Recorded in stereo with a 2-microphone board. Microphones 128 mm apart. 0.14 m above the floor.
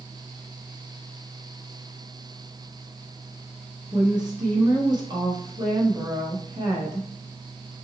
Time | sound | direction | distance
3.9 | a woman speaking | 35° right (ahead or behind) | 1.3 m